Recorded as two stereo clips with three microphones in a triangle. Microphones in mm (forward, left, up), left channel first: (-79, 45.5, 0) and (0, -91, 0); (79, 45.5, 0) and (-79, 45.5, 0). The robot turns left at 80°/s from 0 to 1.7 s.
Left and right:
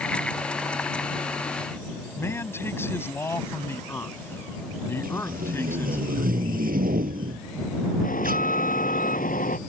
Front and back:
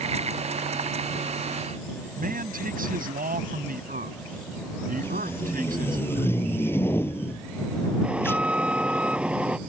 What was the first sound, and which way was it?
A man speaking, 165° right.